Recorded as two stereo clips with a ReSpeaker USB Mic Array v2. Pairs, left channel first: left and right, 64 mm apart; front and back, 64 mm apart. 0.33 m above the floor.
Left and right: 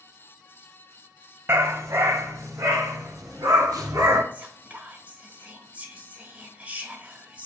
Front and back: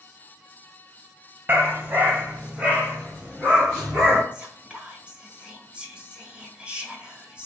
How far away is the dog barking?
About 0.7 m.